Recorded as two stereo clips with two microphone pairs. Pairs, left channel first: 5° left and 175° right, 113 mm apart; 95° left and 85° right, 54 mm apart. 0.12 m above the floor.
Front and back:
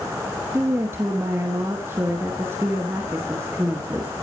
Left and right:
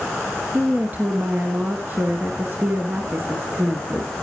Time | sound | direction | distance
0.5 | a woman speaking | 115° right | 2 m